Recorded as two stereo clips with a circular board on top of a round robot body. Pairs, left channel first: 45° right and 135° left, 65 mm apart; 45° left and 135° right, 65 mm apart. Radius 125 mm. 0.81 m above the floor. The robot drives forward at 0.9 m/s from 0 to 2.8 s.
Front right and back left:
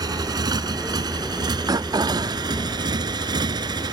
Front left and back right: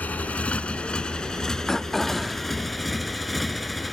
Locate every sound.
0.0 s a motorcycle: 115° left; by 3.9 s 135° left
1.7 s throat clearing: 125° left; by 2.5 s 145° left